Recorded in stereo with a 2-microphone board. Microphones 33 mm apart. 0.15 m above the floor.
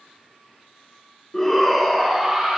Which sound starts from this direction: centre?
A shout, at 1.3 s.